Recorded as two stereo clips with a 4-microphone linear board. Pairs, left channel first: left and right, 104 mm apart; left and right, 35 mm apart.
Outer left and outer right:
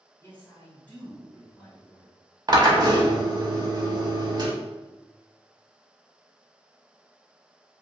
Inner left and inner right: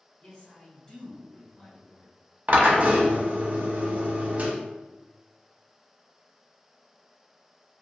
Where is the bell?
I don't hear a bell.